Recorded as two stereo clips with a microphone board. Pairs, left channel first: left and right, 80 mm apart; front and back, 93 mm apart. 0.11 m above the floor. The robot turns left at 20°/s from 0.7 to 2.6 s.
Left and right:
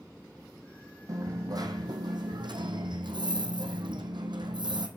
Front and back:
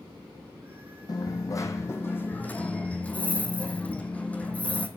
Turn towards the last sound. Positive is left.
turn(degrees=-75)